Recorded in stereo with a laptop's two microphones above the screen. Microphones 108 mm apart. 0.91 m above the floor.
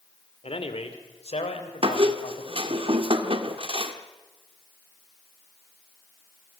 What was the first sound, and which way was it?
A man speaking, 60° left (ahead or behind).